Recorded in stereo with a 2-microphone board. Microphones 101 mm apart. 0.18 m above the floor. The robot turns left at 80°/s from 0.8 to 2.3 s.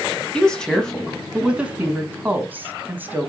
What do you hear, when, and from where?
0.3 s a woman speaking: 10° left (ahead or behind), 1.0 m; by 3.3 s 20° right (ahead or behind), 1.0 m